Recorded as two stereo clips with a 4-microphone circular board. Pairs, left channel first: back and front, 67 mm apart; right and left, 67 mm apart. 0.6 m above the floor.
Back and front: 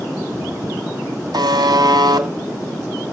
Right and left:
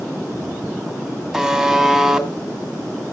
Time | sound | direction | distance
1.3 | a buzzer | 10° left | 2.5 m